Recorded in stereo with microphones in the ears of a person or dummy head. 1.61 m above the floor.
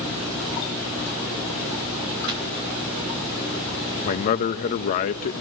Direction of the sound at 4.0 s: 45° left (ahead or behind).